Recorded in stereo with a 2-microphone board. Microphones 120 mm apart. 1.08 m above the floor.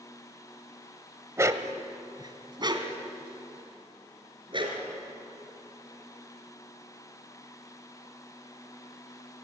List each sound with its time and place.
1.4 s a dog barking: 25° right (ahead or behind), 1.0 m; by 4.8 s 45° right (ahead or behind), 4 m